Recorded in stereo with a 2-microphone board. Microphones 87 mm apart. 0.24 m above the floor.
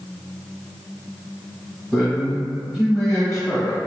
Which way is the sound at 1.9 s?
15° right (ahead or behind).